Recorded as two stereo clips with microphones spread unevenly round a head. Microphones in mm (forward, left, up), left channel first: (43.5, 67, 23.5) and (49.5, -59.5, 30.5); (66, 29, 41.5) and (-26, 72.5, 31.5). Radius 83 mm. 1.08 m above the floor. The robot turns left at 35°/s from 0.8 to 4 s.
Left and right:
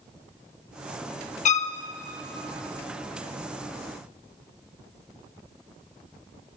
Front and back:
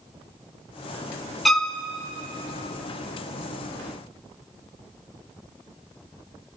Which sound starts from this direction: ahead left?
A violin, at 1.4 s.